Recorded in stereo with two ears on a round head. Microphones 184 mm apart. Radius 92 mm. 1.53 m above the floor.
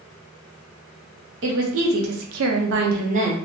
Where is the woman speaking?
60° right (ahead or behind), 0.8 m; by 3.3 s 30° right (ahead or behind), 0.7 m.